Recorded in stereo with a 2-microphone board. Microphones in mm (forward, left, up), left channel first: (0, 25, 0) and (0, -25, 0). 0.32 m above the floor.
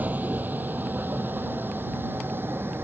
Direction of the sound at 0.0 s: 35° right (ahead or behind).